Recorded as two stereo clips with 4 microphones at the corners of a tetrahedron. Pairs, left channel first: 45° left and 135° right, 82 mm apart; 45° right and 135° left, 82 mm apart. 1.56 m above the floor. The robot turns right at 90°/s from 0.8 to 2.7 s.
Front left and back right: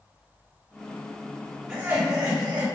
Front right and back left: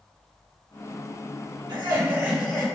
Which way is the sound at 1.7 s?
140° left.